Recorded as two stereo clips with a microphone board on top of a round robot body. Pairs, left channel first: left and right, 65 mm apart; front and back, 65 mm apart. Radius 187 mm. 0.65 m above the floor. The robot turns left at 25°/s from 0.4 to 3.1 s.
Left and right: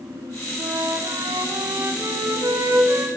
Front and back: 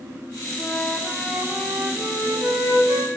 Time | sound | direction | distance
0.6 | a flute | 90° right | 9 m